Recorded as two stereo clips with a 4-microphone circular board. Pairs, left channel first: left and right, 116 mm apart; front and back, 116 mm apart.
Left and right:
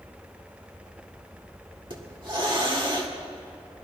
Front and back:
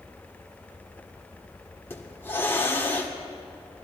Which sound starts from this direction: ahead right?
A hiss, at 1.9 s.